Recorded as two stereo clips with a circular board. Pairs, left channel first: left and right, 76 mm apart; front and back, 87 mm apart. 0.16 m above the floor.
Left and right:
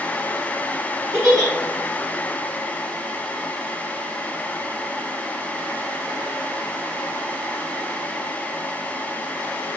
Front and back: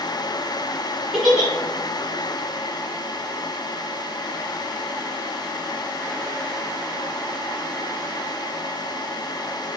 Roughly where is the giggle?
Right.